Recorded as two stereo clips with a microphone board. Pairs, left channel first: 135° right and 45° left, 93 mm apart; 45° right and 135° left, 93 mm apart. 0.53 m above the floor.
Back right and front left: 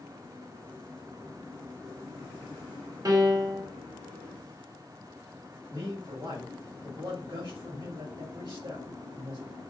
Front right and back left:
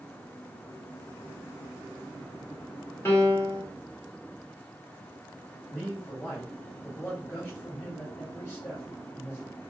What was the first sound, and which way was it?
A piano, 15° left.